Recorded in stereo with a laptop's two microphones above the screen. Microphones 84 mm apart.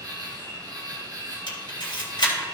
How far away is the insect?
About 1.8 m.